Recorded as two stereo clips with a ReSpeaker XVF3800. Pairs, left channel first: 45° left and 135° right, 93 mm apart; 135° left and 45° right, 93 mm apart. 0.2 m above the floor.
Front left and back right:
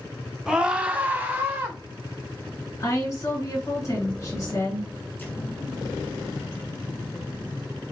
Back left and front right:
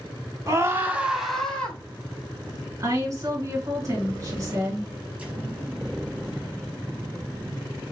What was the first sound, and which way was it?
A scream, 55° right.